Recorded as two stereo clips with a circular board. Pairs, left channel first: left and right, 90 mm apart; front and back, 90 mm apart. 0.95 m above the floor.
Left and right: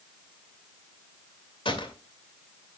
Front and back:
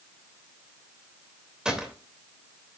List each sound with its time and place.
1.6 s a gunshot: 100° left, 2.5 m